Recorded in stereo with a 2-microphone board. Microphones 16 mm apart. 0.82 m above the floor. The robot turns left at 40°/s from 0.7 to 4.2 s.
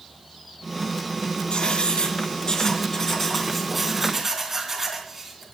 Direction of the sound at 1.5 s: 85° left.